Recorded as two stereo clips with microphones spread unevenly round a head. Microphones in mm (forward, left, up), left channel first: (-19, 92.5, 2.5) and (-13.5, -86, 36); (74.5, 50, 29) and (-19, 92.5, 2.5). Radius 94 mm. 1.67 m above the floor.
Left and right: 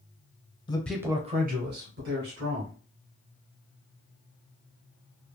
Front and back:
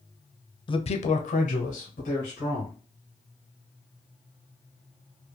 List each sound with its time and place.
0.7 s a man speaking: 25° left, 0.6 m; by 2.7 s 65° right, 1.8 m